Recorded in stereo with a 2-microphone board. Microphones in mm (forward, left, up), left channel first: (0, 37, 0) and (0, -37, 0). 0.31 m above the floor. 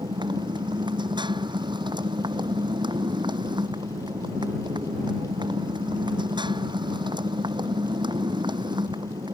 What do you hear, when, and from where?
0.0 s a motorcycle: 85° right